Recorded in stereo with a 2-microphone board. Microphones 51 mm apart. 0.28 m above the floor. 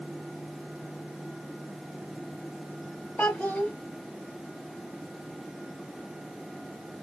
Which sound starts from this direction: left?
A child speaking, at 3.2 s.